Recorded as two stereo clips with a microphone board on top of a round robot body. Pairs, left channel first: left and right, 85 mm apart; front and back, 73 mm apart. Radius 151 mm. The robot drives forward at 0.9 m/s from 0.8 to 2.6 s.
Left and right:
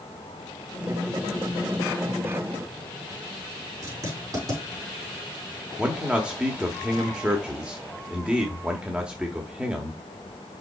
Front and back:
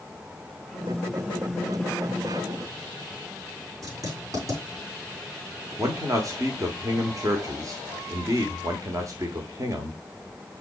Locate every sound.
3.8 s writing: 140° right, 5 m
5.8 s a man speaking: 165° right, 1.5 m